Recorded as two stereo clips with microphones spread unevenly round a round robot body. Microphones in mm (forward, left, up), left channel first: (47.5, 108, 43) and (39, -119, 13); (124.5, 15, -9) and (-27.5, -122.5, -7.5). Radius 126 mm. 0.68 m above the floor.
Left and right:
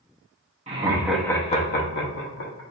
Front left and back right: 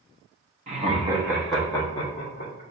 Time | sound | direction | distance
0.7 | laughter | 110° right | 0.9 m